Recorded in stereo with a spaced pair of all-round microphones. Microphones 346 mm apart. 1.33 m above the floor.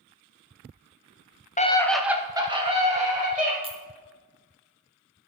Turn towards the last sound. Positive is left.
turn(degrees=-15)  # may be behind; listen again after turning